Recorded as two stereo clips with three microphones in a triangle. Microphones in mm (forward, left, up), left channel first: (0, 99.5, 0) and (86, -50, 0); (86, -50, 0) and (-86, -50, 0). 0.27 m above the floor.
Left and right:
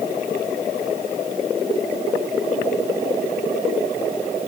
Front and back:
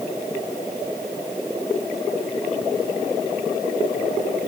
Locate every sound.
Only background noise.